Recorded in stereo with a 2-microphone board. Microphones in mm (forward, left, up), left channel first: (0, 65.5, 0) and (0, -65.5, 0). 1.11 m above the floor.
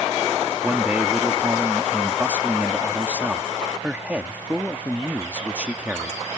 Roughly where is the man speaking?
Centre.